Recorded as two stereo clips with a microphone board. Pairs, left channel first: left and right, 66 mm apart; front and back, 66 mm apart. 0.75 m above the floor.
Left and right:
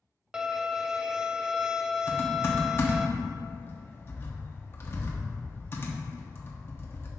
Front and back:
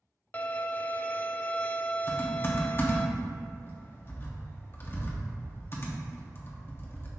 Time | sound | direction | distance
0.3 | a violin | 20° right | 0.5 m
2.1 | typing on a keyboard | 45° left | 1.3 m